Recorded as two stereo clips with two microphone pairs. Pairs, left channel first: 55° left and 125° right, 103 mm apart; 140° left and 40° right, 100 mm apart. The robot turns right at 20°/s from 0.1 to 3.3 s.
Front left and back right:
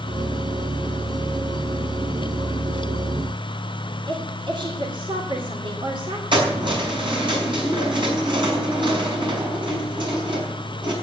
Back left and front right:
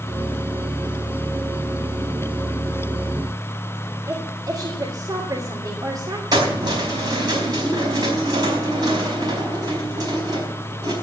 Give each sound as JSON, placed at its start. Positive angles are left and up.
{"t": 4.1, "sound": "a woman speaking", "azimuth_deg": -90, "distance_m": 2.5}
{"t": 6.3, "sound": "keys jangling", "azimuth_deg": -90, "distance_m": 4.5}